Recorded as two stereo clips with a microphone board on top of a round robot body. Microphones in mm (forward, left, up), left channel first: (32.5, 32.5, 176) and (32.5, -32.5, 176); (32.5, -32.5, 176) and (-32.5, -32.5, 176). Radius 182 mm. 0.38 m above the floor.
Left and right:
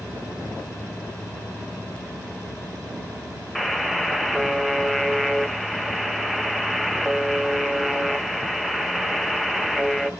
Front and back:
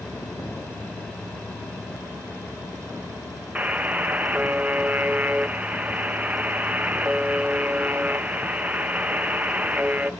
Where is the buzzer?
175° right, 1.0 m.